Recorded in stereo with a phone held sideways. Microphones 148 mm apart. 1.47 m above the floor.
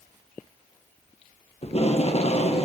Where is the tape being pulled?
45° left (ahead or behind), 0.9 m.